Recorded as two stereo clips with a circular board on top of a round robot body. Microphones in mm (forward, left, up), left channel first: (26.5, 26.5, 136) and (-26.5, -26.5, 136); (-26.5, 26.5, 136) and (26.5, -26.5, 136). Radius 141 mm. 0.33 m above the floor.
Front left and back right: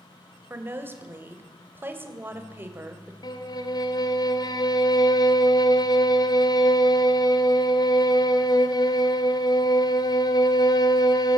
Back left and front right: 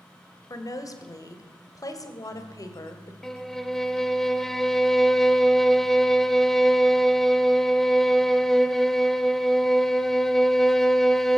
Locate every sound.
0.5 s a woman speaking: 165° left, 2.5 m
3.2 s a violin: 50° left, 1.4 m